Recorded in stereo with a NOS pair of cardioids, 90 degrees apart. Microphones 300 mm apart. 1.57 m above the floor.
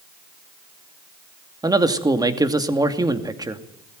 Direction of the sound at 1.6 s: 10° right.